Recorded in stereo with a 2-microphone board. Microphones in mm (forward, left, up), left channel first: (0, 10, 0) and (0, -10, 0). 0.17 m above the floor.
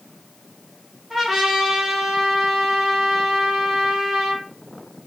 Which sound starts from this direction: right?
A trumpet, at 1.1 s.